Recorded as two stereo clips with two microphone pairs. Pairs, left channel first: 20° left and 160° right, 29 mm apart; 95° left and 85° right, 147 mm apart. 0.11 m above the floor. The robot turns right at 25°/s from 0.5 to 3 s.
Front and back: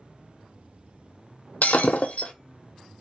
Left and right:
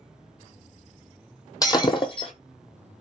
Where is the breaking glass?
35° left, 0.6 m; by 2.3 s 55° left, 0.6 m.